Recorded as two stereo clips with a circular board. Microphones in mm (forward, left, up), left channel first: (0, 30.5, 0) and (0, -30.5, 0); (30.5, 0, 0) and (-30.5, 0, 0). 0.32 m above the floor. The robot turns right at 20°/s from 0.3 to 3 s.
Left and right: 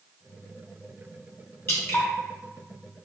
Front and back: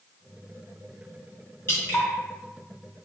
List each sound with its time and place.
1.7 s dripping: 45° left, 2 m; by 2.1 s 50° left, 2 m